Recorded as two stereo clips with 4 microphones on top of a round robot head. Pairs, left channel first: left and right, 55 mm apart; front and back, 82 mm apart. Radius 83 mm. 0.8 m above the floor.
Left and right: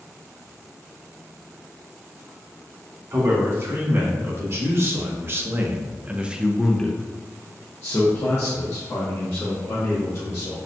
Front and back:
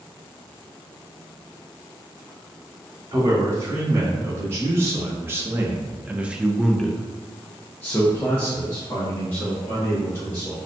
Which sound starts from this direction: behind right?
A man speaking, at 3.1 s.